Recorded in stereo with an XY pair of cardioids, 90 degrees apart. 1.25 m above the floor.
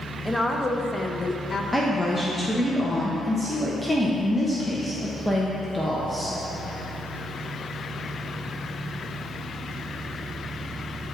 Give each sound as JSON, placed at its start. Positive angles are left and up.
{"t": 0.2, "sound": "a woman speaking", "azimuth_deg": 0, "distance_m": 1.3}
{"t": 1.7, "sound": "a woman speaking", "azimuth_deg": 5, "distance_m": 1.1}